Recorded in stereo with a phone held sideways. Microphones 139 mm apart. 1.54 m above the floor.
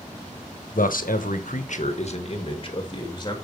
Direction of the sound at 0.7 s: 80° left.